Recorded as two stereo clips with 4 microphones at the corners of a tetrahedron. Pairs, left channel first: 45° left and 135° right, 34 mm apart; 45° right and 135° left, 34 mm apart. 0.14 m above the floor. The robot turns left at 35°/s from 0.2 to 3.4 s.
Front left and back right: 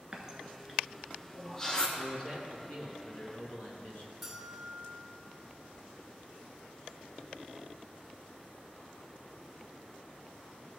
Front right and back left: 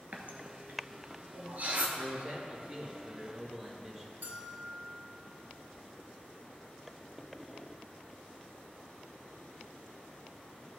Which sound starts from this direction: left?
A man speaking, at 2.0 s.